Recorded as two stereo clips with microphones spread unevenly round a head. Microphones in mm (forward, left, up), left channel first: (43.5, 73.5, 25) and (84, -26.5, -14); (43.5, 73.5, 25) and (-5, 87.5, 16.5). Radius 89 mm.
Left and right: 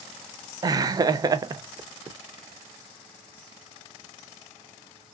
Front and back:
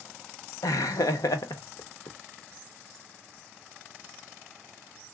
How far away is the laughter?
About 0.5 m.